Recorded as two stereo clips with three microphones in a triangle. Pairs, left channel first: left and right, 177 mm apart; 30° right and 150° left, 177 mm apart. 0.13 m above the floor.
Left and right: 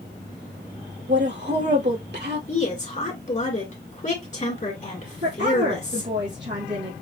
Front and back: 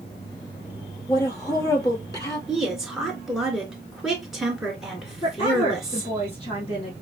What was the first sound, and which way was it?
A woman speaking, 100° right.